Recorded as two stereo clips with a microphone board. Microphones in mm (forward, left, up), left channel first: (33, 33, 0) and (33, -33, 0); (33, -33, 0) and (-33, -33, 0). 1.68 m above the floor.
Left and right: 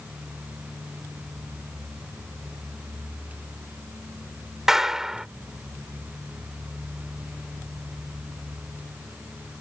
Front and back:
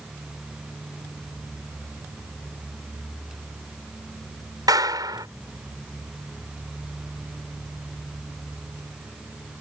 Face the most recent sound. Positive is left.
turn(degrees=-175)